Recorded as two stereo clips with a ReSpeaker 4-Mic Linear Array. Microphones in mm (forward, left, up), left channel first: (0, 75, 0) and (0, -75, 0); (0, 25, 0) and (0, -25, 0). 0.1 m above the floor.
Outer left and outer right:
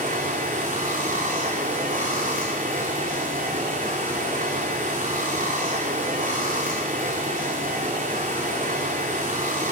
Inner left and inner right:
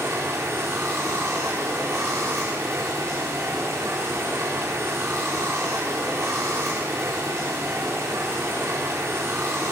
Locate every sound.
0.0 s running water: 60° right (ahead or behind), 4 m